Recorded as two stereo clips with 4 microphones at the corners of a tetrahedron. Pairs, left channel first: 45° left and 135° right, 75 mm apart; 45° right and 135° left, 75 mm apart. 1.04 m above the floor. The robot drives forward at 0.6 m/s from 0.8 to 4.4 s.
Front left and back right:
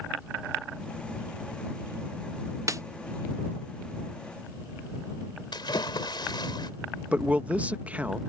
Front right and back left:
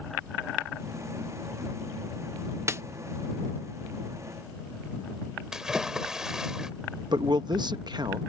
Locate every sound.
2.7 s a snare drum: 175° right
5.5 s a splash: 55° left
7.1 s a man speaking: 155° left